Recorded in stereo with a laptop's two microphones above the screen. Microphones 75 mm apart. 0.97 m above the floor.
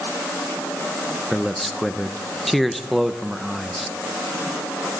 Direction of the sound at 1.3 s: Centre (ahead or behind).